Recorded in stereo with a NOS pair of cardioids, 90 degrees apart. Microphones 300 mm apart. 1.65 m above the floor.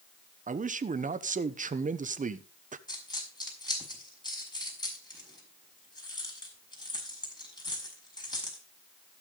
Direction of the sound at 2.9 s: 15° left.